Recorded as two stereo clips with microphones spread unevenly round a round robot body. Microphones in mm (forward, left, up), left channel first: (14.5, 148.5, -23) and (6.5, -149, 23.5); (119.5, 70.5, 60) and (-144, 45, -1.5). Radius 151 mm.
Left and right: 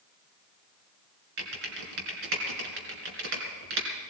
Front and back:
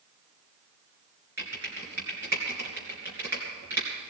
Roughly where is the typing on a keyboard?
Right.